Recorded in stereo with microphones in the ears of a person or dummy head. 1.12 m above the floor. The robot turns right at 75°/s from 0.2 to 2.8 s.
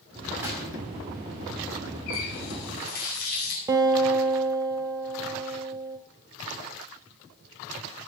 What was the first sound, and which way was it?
A gunshot, 10° right (ahead or behind).